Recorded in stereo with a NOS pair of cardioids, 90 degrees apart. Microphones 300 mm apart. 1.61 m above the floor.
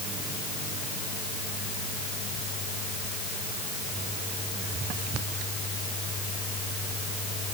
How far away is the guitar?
No guitar in this recording.